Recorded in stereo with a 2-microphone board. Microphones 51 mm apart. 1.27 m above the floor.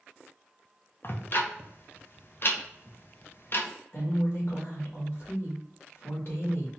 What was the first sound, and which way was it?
Ticking, 50° left (ahead or behind).